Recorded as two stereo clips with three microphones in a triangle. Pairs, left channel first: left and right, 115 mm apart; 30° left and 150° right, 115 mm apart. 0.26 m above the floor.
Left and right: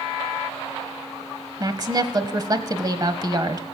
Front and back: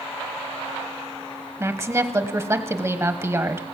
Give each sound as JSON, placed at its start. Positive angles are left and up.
{"t": 1.6, "sound": "a woman speaking", "azimuth_deg": -105, "distance_m": 1.1}